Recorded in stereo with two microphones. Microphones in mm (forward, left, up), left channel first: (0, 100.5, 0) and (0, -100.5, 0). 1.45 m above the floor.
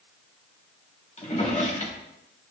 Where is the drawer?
35° left (ahead or behind), 1.5 m.